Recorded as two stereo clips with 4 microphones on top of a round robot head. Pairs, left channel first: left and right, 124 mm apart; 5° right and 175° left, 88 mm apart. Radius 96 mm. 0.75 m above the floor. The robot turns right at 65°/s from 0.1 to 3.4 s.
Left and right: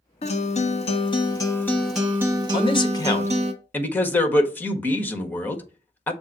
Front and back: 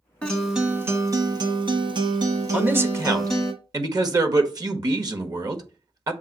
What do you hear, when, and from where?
0.2 s a guitar: 70° left, 1.2 m; by 3.5 s 85° right, 1.2 m
2.5 s a man speaking: 105° left, 1.4 m; by 6.1 s 160° left, 1.4 m